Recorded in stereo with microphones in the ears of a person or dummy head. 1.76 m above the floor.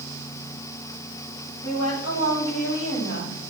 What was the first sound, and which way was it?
A woman speaking, 80° left.